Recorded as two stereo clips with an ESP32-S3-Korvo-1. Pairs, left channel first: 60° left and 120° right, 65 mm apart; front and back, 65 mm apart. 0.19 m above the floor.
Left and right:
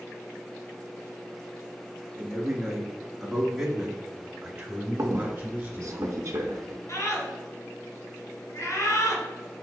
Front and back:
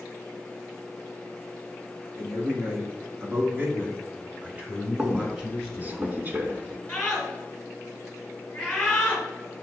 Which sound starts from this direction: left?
A scream, at 6.9 s.